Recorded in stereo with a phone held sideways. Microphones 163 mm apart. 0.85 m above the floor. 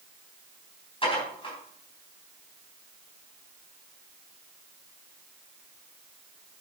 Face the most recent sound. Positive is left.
turn(degrees=35)  # may be behind; listen again after turning